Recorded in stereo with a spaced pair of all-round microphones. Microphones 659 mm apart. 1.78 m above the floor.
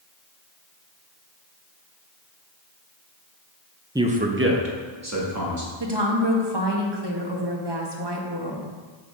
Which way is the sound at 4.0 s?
5° right (ahead or behind).